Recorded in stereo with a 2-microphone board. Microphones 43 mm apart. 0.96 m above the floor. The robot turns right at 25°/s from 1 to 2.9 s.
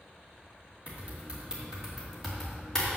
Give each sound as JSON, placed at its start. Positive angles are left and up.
{"t": 0.9, "sound": "typing on a keyboard", "side_deg": -30, "distance_m": 2.5}